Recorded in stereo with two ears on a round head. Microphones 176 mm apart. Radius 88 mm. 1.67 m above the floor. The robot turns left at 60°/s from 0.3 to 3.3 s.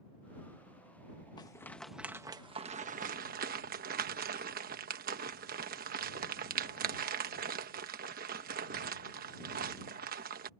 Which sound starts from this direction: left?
A rattle, at 1.4 s.